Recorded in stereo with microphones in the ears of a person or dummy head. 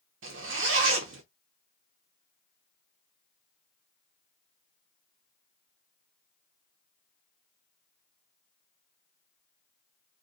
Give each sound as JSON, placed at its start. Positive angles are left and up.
{"t": 0.2, "sound": "a zipper", "side_deg": -65, "distance_m": 0.7}